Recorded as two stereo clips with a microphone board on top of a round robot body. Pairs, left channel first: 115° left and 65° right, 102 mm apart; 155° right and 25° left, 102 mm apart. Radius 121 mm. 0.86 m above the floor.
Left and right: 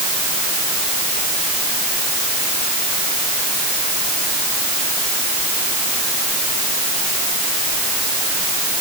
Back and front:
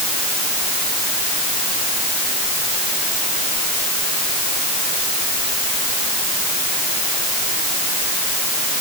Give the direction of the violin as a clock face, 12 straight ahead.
No violin in this recording.